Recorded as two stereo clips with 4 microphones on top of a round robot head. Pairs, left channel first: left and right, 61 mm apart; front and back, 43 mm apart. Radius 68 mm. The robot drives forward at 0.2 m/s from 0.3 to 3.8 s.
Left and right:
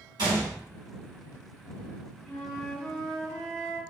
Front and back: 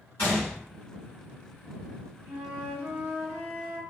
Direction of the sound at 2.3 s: 165° left.